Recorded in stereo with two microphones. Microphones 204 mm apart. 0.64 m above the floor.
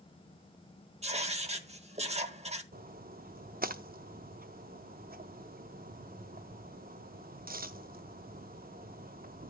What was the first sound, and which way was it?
Writing, 35° right (ahead or behind).